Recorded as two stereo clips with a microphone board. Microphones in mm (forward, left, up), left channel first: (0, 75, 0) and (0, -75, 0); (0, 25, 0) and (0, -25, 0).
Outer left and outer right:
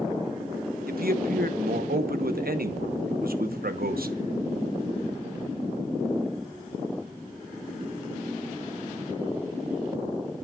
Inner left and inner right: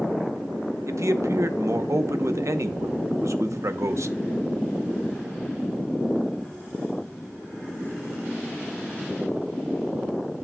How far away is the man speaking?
About 0.9 m.